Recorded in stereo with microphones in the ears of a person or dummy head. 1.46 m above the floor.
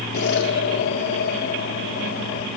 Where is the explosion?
65° left (ahead or behind), 2 m.